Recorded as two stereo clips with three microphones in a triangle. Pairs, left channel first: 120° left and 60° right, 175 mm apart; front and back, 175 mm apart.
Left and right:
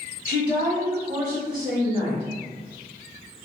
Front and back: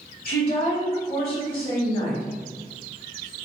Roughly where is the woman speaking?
Ahead.